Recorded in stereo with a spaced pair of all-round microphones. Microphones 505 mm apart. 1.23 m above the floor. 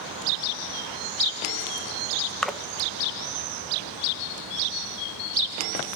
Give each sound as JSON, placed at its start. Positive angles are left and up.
{"t": 2.4, "sound": "a splash", "side_deg": 0, "distance_m": 0.8}